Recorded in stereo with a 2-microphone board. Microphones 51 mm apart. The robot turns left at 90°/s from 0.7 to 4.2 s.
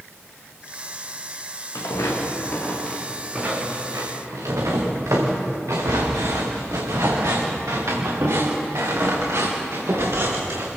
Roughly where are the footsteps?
Left.